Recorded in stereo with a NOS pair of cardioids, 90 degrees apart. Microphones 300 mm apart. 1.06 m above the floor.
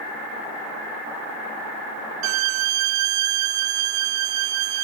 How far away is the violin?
About 0.5 m.